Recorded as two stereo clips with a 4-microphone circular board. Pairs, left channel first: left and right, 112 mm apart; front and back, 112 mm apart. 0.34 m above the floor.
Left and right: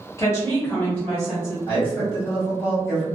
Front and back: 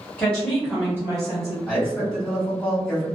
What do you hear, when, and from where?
0.2 s a woman speaking: 65° left, 1.3 m; by 1.6 s straight behind, 1.5 m
1.7 s a man speaking: 90° left, 1.6 m